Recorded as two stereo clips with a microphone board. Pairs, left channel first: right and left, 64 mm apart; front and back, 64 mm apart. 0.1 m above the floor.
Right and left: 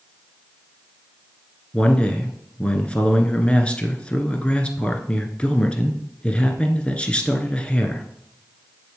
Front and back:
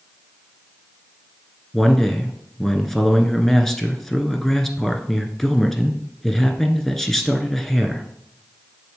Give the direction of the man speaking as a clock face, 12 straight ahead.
2 o'clock.